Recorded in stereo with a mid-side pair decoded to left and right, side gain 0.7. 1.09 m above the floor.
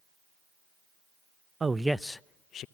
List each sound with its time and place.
1.6 s a man speaking: 20° right, 0.6 m; by 2.6 s 45° left, 0.7 m